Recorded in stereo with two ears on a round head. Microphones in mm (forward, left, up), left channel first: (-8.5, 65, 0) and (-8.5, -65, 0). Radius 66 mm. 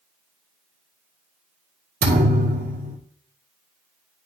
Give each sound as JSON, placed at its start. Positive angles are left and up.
{"t": 2.0, "sound": "a thud", "side_deg": -65, "distance_m": 2.0}